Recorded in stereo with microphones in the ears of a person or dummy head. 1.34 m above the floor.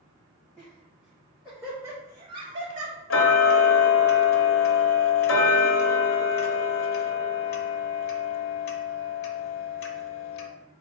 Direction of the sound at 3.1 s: 65° left (ahead or behind).